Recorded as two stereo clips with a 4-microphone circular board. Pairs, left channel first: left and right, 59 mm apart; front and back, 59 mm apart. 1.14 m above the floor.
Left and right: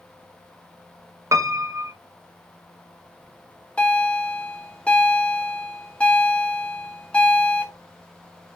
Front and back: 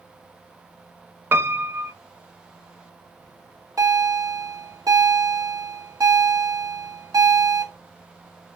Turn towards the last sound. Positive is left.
turn(degrees=160)